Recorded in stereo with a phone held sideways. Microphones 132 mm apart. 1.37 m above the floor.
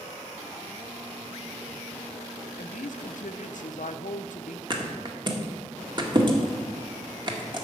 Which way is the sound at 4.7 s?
35° right (ahead or behind).